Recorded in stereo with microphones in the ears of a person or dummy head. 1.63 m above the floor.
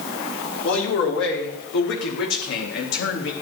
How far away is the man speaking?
About 5 m.